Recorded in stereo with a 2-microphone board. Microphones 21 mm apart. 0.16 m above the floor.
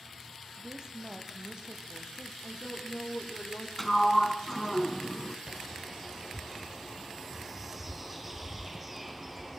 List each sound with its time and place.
0.6 s a woman speaking: 35° right (ahead or behind), 4.5 m; by 2.3 s 50° right (ahead or behind), 3.5 m
2.4 s a woman speaking: 75° left (ahead or behind), 7 m
3.8 s a sliding door: 10° left (ahead or behind), 1.7 m
5.5 s a bird: 10° right (ahead or behind), 3 m